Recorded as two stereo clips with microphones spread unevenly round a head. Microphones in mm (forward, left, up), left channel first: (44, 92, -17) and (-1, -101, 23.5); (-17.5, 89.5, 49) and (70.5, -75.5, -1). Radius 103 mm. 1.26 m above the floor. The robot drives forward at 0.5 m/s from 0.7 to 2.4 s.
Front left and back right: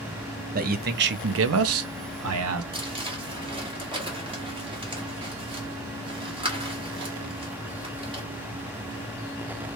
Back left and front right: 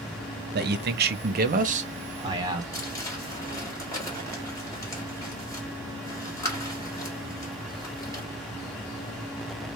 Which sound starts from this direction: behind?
Crumpling, at 2.7 s.